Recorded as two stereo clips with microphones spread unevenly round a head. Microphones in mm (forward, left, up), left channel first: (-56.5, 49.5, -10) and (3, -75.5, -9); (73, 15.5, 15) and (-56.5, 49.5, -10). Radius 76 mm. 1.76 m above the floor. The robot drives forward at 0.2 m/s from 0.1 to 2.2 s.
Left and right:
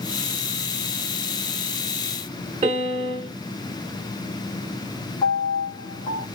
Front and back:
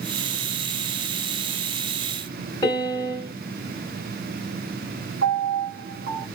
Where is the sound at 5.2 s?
160° left, 1.8 m.